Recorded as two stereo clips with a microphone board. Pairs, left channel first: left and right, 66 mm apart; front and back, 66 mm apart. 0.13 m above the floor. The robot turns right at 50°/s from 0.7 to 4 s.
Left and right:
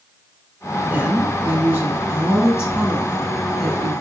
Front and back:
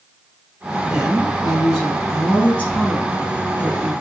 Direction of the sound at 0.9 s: 120° right.